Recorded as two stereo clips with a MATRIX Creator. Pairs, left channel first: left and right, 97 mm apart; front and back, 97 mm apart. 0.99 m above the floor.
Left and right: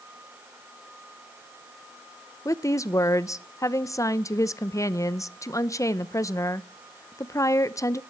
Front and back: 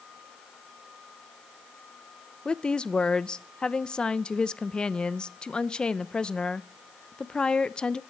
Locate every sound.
2.5 s a woman speaking: 75° left, 0.5 m